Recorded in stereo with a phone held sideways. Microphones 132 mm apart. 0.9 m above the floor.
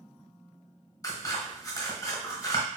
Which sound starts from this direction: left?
Scissors, at 1.0 s.